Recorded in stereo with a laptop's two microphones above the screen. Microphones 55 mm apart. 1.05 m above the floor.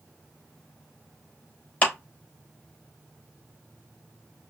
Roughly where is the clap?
Left.